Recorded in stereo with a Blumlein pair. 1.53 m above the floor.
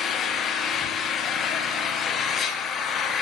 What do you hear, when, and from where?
0.0 s an engine running: 25° left, 0.8 m